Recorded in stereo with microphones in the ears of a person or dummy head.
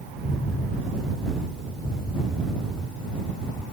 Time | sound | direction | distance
0.2 | an explosion | 10° left (ahead or behind) | ?